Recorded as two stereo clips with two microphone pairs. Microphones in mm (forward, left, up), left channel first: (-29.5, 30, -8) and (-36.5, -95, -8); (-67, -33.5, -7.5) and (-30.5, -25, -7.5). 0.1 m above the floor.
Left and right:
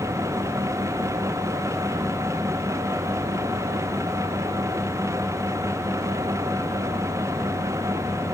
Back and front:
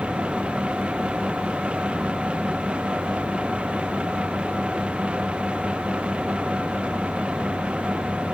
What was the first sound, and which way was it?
Only background noise.